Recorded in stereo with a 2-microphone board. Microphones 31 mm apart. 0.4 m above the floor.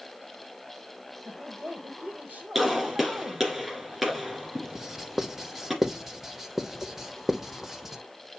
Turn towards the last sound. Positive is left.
turn(degrees=-10)  # may be behind; listen again after turning